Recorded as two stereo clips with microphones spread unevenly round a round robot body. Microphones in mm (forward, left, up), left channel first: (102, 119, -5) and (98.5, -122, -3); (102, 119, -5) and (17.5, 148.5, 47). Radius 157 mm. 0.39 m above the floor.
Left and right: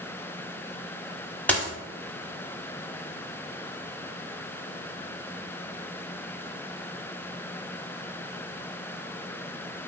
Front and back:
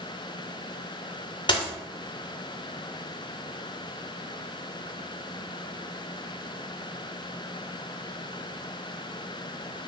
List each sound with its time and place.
1.5 s a dropped coin: 5° left, 0.8 m